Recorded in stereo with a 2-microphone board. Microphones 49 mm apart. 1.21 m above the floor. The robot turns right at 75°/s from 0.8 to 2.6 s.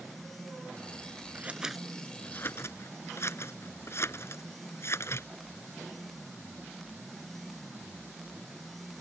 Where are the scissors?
35° right (ahead or behind); by 5.3 s 60° left (ahead or behind).